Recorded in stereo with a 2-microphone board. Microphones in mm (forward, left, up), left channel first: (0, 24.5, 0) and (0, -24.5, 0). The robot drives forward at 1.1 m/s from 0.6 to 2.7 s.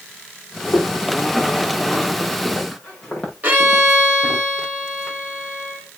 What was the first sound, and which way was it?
Footsteps, 35° left (ahead or behind).